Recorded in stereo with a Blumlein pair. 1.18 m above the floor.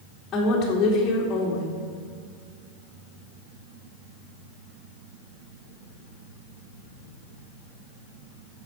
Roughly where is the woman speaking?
Ahead left.